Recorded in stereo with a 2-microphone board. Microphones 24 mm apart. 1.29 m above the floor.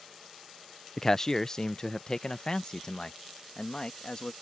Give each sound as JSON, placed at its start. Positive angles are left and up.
{"t": 1.0, "sound": "a man speaking", "side_deg": 15}